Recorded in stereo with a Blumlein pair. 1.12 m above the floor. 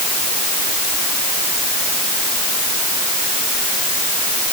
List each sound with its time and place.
Only background noise.